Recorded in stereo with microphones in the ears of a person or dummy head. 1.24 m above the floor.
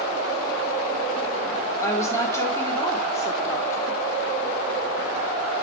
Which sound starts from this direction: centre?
A woman speaking, at 1.8 s.